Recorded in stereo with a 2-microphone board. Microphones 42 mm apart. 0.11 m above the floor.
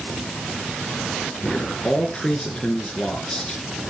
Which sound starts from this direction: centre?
A man speaking, at 1.4 s.